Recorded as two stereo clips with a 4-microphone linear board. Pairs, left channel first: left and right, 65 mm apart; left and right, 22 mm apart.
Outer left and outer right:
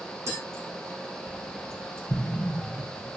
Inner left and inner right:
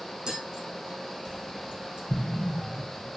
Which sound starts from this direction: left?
An explosion, at 2.1 s.